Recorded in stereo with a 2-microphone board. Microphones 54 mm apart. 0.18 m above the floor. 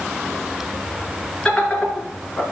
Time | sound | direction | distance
1.4 | laughter | 15° left (ahead or behind) | 2.5 m